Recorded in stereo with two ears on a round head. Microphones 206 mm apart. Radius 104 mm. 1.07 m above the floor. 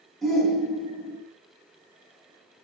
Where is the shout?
Centre (ahead or behind), 1.3 m.